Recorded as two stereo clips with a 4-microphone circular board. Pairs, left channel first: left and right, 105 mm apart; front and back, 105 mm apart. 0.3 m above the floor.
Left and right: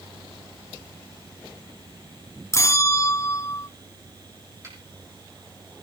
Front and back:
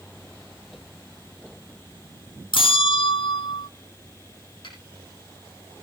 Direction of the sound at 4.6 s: 30° right.